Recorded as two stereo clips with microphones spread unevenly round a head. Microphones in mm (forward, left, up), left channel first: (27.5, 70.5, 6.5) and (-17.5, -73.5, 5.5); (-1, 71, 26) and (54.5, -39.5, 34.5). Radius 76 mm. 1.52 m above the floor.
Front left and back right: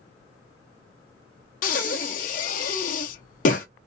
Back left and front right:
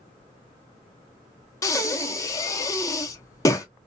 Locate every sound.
1.6 s breathing: 55° left, 0.6 m